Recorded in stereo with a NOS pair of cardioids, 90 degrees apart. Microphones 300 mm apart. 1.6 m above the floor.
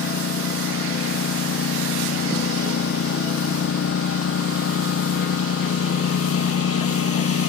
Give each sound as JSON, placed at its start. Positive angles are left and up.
{"t": 0.0, "sound": "a lawn mower", "azimuth_deg": 50}